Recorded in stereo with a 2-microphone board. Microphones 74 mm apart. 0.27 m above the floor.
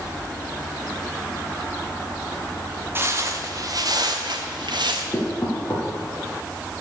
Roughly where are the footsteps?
Right.